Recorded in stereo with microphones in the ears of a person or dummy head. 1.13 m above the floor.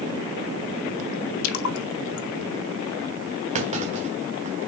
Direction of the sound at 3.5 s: 30° right (ahead or behind).